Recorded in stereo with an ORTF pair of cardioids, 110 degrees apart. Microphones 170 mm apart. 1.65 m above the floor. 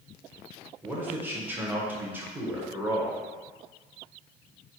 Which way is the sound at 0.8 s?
10° right.